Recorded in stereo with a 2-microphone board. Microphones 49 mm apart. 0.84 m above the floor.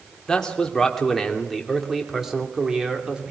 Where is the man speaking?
15° left (ahead or behind), 2.5 m; by 3.3 s 20° right (ahead or behind), 2.5 m.